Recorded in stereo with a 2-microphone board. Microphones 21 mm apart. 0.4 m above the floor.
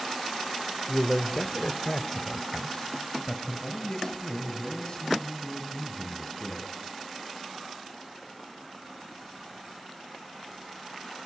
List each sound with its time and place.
0.9 s a man speaking: 30° left (ahead or behind), 1.2 m; by 6.7 s 35° left (ahead or behind), 4 m